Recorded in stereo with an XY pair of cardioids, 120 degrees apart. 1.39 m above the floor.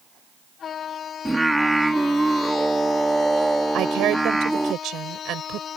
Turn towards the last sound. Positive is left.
turn(degrees=-70)